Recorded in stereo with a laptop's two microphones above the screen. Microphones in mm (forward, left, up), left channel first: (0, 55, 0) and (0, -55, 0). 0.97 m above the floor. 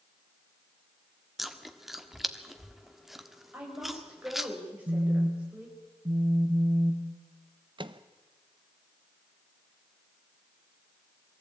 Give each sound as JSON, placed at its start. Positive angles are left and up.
{"t": 1.4, "sound": "chewing", "side_deg": 0, "distance_m": 1.4}
{"t": 3.5, "sound": "a woman speaking", "side_deg": -10, "distance_m": 4.5}
{"t": 4.9, "sound": "a phone buzzing", "side_deg": -45, "distance_m": 1.2}
{"t": 7.8, "sound": "a microwave", "side_deg": -45, "distance_m": 0.7}